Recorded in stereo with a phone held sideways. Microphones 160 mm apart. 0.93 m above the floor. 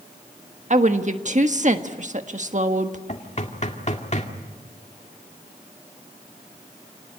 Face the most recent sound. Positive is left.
turn(degrees=45)  # may be behind; listen again after turning